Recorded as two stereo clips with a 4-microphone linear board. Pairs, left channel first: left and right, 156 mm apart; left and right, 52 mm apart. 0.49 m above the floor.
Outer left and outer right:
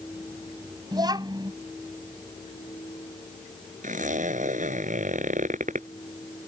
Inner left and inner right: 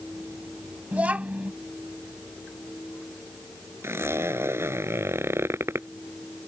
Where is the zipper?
50° right (ahead or behind).